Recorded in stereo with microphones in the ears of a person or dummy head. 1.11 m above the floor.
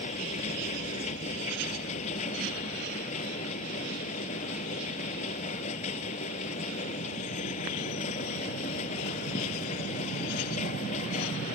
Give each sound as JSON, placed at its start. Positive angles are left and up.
{"t": 0.0, "sound": "a machine running", "side_deg": 40}